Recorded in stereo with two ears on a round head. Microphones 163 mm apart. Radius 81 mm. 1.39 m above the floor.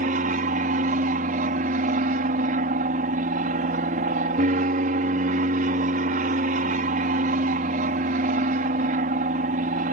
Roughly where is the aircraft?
Right.